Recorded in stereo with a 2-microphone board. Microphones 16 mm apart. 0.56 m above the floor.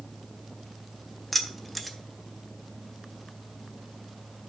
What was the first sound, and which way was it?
Keys jangling, 10° left (ahead or behind).